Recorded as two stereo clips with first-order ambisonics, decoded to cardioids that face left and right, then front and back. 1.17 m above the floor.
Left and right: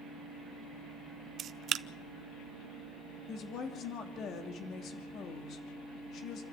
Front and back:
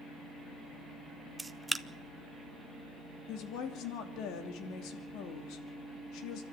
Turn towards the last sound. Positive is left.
turn(degrees=40)